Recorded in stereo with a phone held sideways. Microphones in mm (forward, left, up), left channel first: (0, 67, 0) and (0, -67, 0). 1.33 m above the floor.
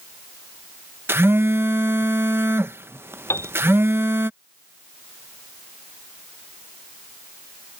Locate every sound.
1.1 s a phone buzzing: 15° right (ahead or behind)
3.3 s a piano: 20° left (ahead or behind)